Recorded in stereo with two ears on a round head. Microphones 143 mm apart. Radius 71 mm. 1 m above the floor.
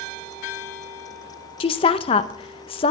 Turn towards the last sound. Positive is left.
turn(degrees=35)  # may be behind; listen again after turning